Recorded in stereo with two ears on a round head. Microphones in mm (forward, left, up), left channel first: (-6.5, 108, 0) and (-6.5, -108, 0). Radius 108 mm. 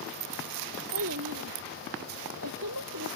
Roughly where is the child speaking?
Right.